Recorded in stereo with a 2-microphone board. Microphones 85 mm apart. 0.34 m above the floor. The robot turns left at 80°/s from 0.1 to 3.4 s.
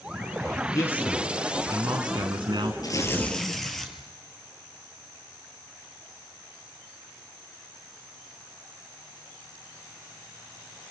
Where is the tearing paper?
50° left, 2.5 m; by 3.9 s 5° left, 2.5 m.